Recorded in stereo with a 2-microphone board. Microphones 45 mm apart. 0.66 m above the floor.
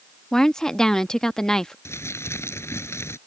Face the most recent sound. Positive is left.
turn(degrees=75)  # may be behind; listen again after turning